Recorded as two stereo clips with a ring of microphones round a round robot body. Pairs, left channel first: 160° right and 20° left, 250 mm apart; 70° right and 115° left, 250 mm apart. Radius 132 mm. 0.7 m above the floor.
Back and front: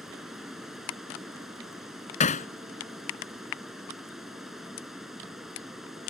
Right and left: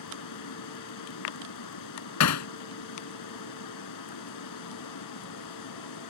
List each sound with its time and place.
0.0 s running water: 65° right
2.2 s hammering: 95° right